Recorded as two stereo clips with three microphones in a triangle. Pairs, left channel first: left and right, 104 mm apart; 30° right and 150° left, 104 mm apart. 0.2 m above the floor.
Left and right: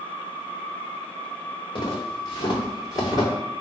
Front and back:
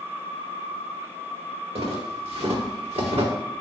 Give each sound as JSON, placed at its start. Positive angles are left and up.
{"t": 1.8, "sound": "footsteps", "azimuth_deg": 130, "distance_m": 2.0}